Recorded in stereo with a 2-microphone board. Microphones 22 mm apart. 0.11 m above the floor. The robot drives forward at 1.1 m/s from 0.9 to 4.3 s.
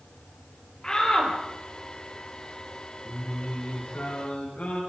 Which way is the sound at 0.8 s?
25° left (ahead or behind).